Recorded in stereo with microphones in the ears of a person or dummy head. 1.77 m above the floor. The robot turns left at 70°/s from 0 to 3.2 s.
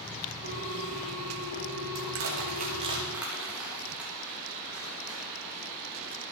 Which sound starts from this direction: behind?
A ringtone, at 0.4 s.